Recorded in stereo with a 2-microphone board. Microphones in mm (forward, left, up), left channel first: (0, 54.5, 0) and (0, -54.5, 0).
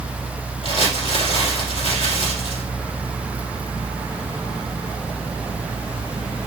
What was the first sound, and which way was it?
Crumpling, 65° left (ahead or behind).